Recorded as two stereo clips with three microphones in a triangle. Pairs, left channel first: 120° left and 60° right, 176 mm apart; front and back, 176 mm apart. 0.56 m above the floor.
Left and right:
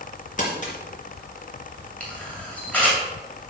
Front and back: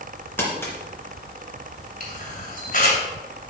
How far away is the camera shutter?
About 2.5 m.